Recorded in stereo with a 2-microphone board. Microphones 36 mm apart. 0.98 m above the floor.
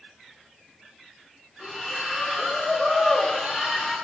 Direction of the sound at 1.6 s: 15° right (ahead or behind).